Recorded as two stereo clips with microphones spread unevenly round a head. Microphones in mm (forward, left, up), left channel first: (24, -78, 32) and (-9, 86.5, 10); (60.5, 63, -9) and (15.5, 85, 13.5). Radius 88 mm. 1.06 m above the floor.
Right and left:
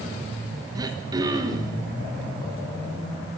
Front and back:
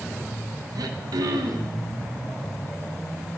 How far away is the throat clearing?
About 1.1 m.